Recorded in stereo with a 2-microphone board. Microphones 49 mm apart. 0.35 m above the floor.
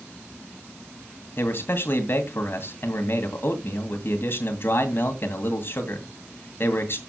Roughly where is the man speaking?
Left.